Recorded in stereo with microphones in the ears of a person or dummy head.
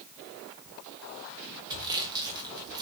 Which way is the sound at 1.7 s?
25° right (ahead or behind).